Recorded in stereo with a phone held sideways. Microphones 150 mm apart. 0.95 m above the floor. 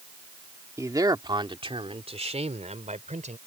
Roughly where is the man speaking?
Right.